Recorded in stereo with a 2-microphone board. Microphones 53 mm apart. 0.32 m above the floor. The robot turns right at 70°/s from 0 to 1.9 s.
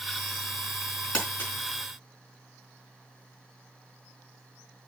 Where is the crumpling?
20° left (ahead or behind), 4 m; by 1.5 s 45° left (ahead or behind), 4 m.